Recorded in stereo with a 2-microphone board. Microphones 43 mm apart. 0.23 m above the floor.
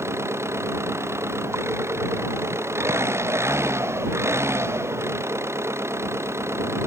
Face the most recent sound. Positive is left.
turn(degrees=-80)